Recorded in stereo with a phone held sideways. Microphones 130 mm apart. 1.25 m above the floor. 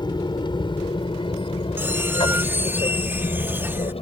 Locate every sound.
0.0 s an aircraft: 35° left (ahead or behind); by 4.0 s 45° left (ahead or behind)
1.8 s a squeak: 15° right (ahead or behind)